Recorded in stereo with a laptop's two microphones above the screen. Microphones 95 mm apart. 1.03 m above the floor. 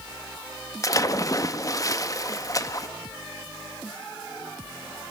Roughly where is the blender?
I don't hear a blender.